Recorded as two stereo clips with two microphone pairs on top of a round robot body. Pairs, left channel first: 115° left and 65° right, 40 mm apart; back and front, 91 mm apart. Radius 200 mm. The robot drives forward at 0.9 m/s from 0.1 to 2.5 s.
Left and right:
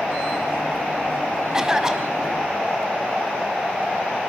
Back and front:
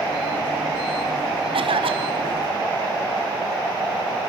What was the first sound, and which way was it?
A cough, 10° left.